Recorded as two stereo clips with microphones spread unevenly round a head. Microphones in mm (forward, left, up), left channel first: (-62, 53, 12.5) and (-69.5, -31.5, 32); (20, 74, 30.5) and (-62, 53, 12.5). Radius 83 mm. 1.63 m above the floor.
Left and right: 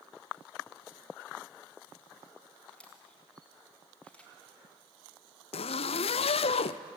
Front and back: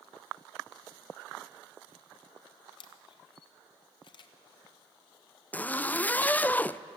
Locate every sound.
2.7 s a camera shutter: 5° right, 1.1 m
5.5 s a zipper: 85° left, 0.5 m